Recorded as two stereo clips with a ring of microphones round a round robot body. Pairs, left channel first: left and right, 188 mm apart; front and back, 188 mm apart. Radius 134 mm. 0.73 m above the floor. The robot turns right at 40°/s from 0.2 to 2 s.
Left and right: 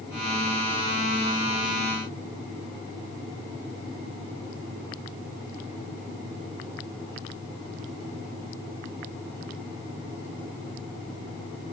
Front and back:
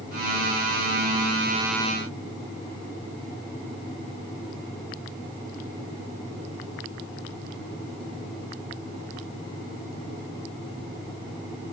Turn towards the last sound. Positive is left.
No sound to turn to.